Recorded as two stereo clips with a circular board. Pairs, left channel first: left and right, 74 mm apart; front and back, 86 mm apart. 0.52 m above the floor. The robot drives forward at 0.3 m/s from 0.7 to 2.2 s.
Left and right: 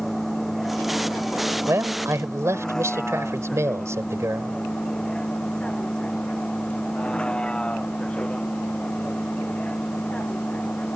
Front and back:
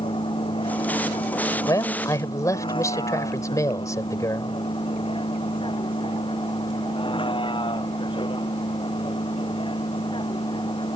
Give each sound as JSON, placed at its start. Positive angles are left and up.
{"t": 0.0, "sound": "a vehicle", "azimuth_deg": 5}
{"t": 1.7, "sound": "a man speaking", "azimuth_deg": -40}